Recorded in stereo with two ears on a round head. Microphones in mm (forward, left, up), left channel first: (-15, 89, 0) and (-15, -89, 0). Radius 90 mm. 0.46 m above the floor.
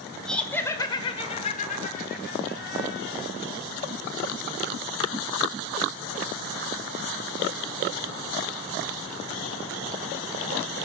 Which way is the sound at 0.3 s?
Centre (ahead or behind).